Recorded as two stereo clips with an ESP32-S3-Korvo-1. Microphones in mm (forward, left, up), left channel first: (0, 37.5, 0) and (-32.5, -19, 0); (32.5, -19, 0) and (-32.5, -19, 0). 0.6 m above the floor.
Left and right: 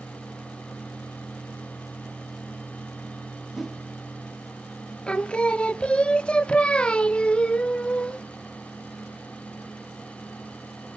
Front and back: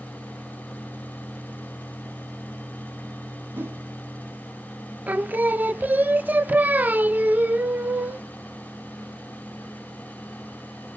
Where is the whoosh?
160° left, 1.1 m.